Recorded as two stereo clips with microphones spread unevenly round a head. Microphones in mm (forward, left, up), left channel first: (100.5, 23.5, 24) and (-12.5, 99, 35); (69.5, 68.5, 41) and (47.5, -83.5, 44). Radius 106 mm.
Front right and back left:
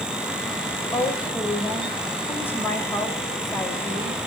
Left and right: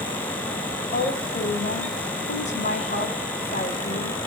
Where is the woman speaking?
40° left, 6 m.